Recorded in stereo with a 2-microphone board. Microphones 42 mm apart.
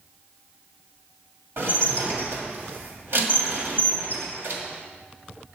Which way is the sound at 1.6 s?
60° right (ahead or behind).